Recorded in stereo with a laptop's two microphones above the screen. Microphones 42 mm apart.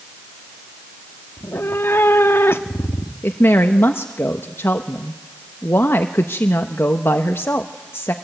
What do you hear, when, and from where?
1.4 s a cat meowing: 75° left (ahead or behind), 1.0 m
3.2 s a woman speaking: 70° left (ahead or behind), 1.1 m